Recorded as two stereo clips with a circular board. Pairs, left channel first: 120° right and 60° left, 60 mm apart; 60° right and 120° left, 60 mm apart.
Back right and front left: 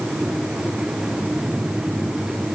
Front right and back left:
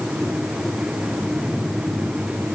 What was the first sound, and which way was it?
Only background noise.